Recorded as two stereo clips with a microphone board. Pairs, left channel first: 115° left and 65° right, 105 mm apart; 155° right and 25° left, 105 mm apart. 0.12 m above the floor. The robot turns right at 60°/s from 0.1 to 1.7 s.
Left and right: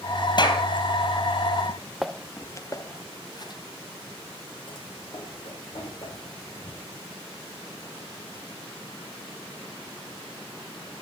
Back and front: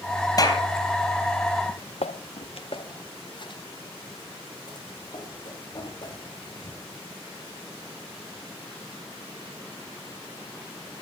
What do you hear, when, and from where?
0.4 s a clap: 150° left, 3 m; by 0.6 s 165° left, 3 m
1.7 s footsteps: 110° right, 0.6 m; by 7.0 s 150° left, 8.5 m